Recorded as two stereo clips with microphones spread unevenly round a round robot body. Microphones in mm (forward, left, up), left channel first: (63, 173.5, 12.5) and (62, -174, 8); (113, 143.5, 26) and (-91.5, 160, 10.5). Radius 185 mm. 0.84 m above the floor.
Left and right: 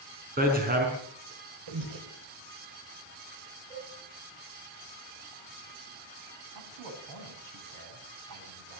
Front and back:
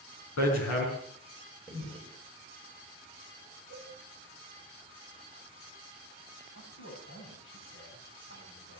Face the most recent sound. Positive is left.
turn(degrees=-60)